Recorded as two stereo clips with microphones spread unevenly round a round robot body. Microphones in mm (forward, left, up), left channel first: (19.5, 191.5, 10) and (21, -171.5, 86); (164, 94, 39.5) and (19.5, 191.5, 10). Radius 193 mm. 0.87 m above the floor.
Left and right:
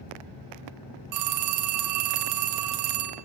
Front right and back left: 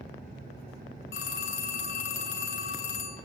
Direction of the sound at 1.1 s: 50° right.